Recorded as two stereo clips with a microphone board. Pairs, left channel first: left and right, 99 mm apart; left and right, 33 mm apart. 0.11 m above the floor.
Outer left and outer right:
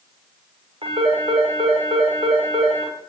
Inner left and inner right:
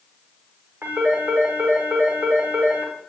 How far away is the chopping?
No chopping in this recording.